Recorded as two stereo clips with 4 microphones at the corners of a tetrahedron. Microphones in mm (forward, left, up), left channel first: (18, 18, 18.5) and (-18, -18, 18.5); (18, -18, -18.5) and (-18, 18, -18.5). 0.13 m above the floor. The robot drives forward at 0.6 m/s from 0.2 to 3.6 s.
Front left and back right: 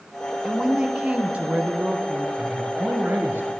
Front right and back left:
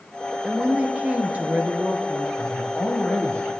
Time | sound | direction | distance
0.4 | a woman speaking | 170° left | 1.1 m
2.4 | a man speaking | 80° right | 2 m